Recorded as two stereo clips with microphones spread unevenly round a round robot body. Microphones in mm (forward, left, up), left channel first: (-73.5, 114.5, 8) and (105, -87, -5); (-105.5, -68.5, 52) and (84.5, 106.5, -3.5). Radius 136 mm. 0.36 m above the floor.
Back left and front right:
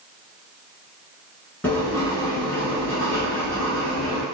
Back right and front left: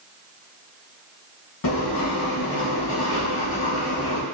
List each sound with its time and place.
1.6 s writing: 145° right, 1.0 m